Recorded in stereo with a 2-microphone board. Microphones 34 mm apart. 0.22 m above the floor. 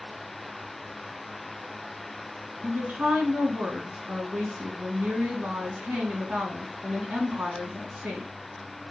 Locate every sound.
2.6 s a woman speaking: 50° right (ahead or behind), 2.5 m